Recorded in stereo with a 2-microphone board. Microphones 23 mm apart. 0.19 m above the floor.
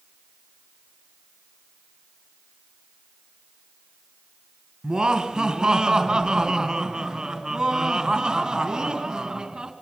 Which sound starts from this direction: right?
Laughter, at 4.8 s.